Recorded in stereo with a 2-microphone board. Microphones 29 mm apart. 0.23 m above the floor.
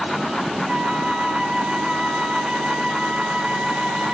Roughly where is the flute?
Right.